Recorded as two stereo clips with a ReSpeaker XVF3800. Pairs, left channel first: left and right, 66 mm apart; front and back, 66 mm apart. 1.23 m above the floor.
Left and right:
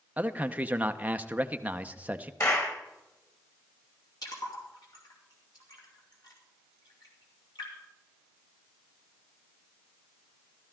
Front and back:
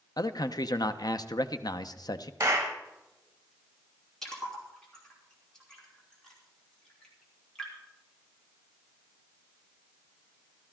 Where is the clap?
130° left, 1.9 m.